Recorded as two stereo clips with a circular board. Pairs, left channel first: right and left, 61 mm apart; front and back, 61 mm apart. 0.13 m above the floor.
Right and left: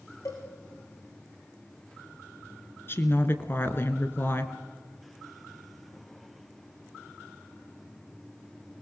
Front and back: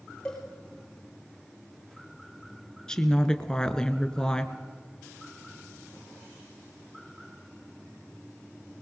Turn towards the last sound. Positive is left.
turn(degrees=-70)